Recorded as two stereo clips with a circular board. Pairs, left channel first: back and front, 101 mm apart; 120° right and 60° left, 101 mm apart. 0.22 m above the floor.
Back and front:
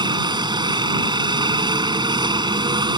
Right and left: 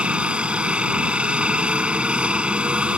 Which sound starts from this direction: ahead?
A helicopter, at 0.0 s.